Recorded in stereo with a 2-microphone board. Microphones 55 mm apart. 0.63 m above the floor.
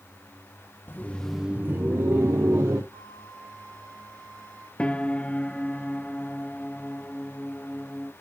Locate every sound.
0.9 s laughter: 40° left (ahead or behind), 0.8 m; by 2.8 s 70° right (ahead or behind), 1.8 m
2.9 s a flute: 65° right (ahead or behind), 6.5 m
4.8 s a piano: 20° left (ahead or behind), 0.7 m